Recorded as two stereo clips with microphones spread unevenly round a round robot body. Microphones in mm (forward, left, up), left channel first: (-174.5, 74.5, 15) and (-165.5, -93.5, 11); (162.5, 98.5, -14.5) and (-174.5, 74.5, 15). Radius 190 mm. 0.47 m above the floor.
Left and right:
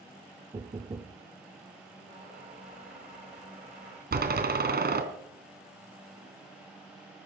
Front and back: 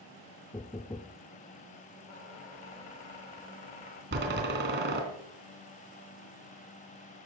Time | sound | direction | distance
0.5 | knocking | 55° right | 0.8 m
2.1 | a squeak | 20° right | 7 m
4.1 | a door slam | 110° right | 3 m